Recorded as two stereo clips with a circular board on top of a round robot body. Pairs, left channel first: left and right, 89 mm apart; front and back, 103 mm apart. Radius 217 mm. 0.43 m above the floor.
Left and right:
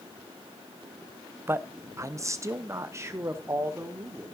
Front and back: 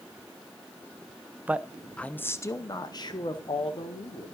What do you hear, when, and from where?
1.5 s a man speaking: 120° right, 0.8 m; by 4.3 s 30° right, 1.8 m